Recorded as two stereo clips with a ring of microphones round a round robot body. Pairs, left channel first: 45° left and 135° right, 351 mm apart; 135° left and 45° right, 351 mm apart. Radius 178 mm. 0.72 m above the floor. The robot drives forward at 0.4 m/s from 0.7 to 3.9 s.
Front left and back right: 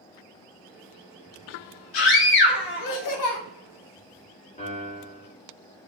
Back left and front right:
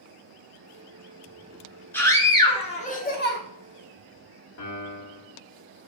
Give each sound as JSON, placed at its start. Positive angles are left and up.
{"t": 1.9, "sound": "a scream", "azimuth_deg": 50, "distance_m": 1.3}
{"t": 4.6, "sound": "a piano", "azimuth_deg": 110, "distance_m": 1.2}